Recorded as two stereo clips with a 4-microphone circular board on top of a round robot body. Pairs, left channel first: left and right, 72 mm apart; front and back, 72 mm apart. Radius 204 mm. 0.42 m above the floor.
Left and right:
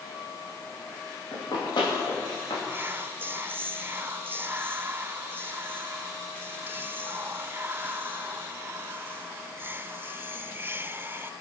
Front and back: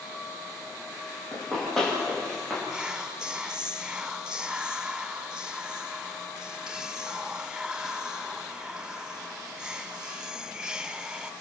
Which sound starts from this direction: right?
Whispering, at 2.7 s.